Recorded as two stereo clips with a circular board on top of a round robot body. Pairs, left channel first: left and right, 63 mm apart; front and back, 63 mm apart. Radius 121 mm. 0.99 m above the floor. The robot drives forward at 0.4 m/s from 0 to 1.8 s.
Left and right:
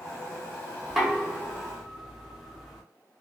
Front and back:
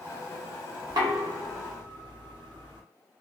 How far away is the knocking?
About 0.6 m.